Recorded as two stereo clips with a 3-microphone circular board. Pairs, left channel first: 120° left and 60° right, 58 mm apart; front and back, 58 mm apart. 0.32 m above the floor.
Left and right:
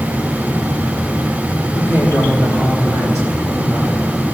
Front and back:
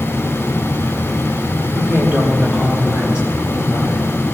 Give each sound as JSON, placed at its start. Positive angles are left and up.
{"t": 1.8, "sound": "a woman speaking", "azimuth_deg": 130, "distance_m": 3.0}